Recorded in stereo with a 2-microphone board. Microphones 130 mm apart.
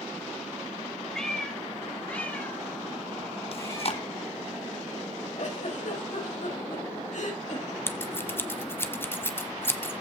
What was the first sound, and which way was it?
A cat meowing, 5° left (ahead or behind).